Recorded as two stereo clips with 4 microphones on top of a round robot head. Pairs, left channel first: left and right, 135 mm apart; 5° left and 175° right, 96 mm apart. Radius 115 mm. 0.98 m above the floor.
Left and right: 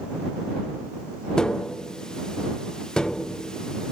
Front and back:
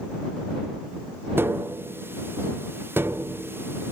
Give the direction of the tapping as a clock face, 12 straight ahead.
6 o'clock.